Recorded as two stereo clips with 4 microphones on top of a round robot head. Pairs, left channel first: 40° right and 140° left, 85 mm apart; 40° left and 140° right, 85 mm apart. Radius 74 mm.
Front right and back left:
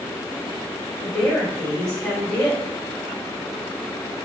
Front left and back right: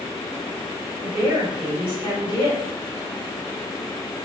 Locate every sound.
1.0 s a woman speaking: 115° right, 2.5 m